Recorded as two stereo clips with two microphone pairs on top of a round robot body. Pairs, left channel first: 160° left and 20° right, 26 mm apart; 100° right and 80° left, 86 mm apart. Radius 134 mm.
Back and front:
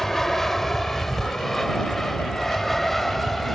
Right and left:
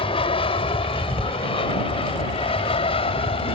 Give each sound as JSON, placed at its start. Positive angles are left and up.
{"t": 0.0, "sound": "an aircraft", "azimuth_deg": -120}